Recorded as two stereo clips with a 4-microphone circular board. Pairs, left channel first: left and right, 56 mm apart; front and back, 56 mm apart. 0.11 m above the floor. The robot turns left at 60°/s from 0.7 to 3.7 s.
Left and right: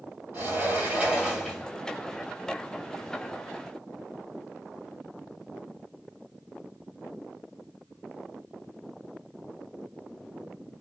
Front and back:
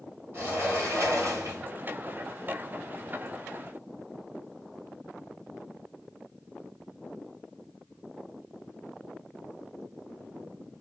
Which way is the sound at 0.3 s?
130° right.